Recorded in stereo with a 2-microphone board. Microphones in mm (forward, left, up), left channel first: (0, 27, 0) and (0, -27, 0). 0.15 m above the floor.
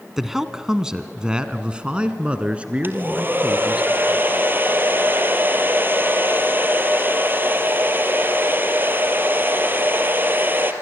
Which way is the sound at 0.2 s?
5° right (ahead or behind).